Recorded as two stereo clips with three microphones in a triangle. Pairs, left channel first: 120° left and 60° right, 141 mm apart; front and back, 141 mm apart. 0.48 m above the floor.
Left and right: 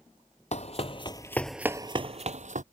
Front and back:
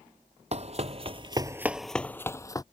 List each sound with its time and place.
0.5 s running footsteps: 150° left; by 2.6 s 60° right